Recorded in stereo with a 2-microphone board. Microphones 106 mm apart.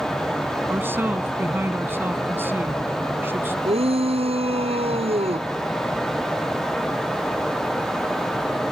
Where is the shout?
70° right (ahead or behind).